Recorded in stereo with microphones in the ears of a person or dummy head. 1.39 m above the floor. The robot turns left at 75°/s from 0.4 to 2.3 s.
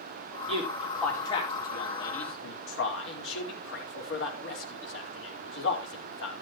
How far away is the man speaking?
About 4.5 m.